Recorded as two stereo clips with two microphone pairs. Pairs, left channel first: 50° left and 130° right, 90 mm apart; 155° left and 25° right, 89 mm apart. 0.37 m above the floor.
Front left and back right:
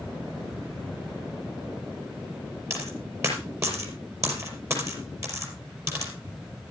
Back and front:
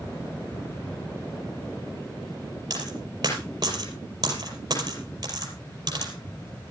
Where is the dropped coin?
70° right, 5 m.